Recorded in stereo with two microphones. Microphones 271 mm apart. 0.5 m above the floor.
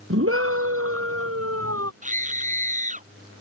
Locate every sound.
0.1 s a scream: 55° right (ahead or behind); by 1.9 s 60° right (ahead or behind)
2.0 s a scream: 25° right (ahead or behind)